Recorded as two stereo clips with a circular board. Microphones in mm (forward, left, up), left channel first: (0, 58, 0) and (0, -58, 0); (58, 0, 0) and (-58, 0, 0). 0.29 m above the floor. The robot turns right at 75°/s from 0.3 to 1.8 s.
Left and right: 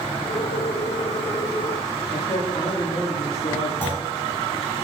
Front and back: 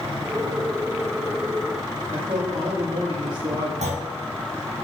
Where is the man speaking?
125° left, 7.5 m.